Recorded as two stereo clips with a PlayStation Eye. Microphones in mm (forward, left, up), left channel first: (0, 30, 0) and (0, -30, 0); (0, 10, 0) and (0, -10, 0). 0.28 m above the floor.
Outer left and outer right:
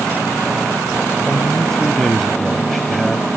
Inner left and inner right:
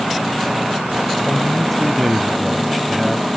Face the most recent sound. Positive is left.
turn(degrees=5)  # may be behind; listen again after turning